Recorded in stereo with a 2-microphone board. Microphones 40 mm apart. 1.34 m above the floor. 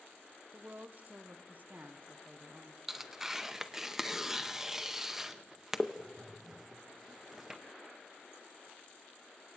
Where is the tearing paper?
10° right (ahead or behind), 0.6 m.